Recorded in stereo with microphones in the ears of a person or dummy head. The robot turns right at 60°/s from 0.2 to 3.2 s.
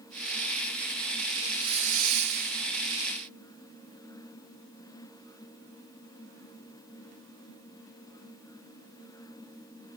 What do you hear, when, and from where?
1.4 s a hiss: 165° right, 0.6 m; by 2.7 s 90° right, 0.6 m